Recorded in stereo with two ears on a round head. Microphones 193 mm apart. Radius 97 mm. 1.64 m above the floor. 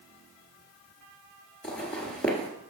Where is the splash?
No splash in this recording.